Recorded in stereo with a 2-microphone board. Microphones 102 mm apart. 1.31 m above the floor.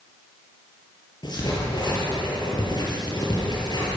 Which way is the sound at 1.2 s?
45° left (ahead or behind).